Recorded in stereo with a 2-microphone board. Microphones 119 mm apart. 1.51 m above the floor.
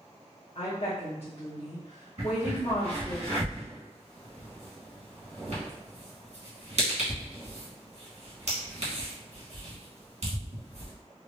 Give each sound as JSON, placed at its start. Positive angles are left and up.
{"t": 0.6, "sound": "a woman speaking", "side_deg": 55, "distance_m": 0.9}
{"t": 2.2, "sound": "a crack", "side_deg": -65, "distance_m": 1.4}